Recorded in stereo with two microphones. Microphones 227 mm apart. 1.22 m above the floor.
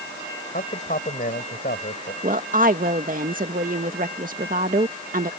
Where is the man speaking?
40° left (ahead or behind).